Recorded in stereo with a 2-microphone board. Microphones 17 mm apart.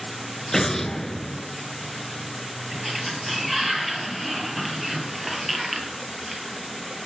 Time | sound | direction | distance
0.5 | an explosion | 20° left (ahead or behind) | 0.6 m
2.7 | a sliding door | 5° right (ahead or behind) | 2.5 m